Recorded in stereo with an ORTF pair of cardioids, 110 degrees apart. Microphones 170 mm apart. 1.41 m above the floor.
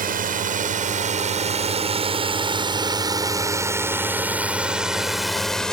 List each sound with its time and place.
0.0 s a drone: 55° right; by 5.7 s 5° left